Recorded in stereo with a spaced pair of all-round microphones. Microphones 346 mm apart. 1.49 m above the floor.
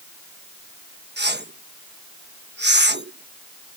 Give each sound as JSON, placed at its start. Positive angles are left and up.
{"t": 1.2, "sound": "a whoosh", "side_deg": -30}